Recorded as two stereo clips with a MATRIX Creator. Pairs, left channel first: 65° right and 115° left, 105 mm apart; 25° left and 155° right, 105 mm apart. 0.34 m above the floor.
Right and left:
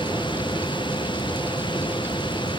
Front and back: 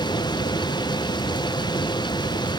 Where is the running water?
25° right.